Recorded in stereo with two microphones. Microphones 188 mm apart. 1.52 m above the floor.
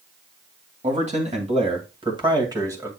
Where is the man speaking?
40° right (ahead or behind), 2.5 m; by 2.9 s 15° right (ahead or behind), 2 m.